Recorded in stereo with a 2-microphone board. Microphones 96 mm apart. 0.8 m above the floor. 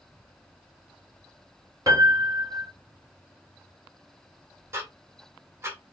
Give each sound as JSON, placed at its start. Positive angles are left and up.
{"t": 1.9, "sound": "a piano", "side_deg": -40, "distance_m": 1.2}
{"t": 4.7, "sound": "ticking", "side_deg": -25, "distance_m": 1.0}